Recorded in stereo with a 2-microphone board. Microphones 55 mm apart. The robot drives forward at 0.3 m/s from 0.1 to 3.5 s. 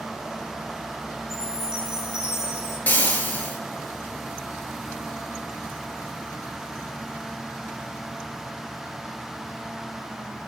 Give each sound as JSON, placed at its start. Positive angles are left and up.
{"t": 1.3, "sound": "a chime", "side_deg": 55, "distance_m": 6.5}
{"t": 2.9, "sound": "frying", "side_deg": 30, "distance_m": 3.0}